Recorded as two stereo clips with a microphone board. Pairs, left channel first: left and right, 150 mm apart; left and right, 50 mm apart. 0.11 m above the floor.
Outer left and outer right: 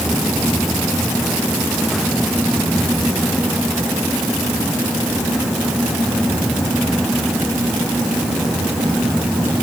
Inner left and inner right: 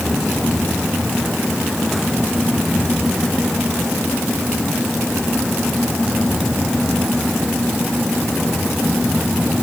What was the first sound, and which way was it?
Only background noise.